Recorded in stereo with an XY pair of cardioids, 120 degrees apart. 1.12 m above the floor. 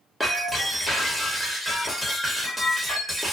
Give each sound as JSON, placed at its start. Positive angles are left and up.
{"t": 0.2, "sound": "breaking glass", "azimuth_deg": 5, "distance_m": 1.0}